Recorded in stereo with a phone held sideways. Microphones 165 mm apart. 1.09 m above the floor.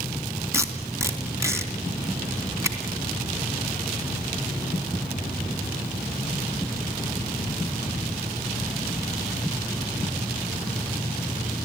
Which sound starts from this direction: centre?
Tape being pulled, at 0.5 s.